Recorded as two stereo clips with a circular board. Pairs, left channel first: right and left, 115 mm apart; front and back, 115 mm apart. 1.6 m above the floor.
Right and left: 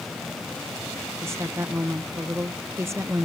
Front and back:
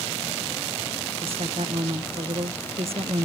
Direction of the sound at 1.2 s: 155° left.